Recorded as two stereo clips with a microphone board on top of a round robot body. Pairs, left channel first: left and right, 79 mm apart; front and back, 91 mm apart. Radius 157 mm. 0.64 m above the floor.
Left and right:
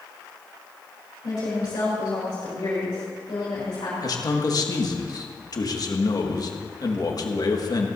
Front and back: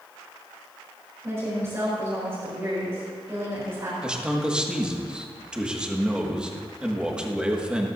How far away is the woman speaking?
About 4 m.